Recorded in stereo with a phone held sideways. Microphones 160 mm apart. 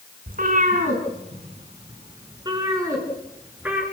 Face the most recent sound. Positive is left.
turn(degrees=-10)  # may be behind; listen again after turning